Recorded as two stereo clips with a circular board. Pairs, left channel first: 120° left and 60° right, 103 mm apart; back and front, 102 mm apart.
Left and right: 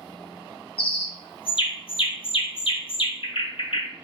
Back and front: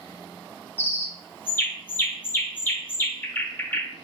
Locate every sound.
0.8 s a bird: 110° left, 0.7 m